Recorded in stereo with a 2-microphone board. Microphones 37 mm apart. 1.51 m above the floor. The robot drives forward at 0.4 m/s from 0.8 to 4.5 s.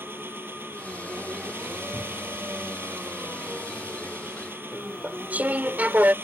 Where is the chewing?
45° right (ahead or behind).